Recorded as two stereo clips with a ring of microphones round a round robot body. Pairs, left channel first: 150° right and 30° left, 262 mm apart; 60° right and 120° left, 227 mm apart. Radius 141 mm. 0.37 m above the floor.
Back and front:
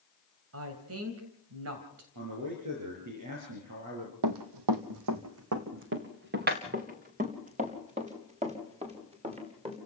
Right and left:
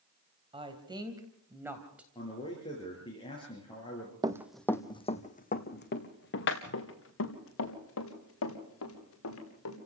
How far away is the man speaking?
About 6.5 m.